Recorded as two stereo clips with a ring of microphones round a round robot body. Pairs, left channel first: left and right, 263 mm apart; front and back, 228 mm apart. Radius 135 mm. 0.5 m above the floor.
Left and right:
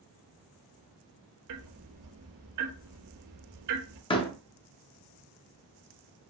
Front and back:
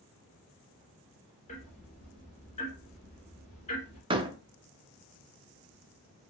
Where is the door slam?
140° left, 0.6 m.